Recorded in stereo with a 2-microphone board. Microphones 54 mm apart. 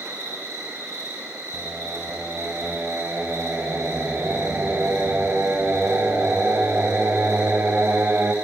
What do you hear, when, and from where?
0.0 s an insect: 65° right (ahead or behind), 6.5 m
1.5 s singing: 40° right (ahead or behind), 1.8 m